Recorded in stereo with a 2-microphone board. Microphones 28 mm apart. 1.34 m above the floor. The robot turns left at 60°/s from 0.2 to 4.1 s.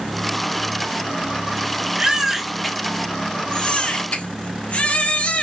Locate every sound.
2.0 s a baby crying: 145° right, 1.1 m; by 5.4 s 90° left, 1.1 m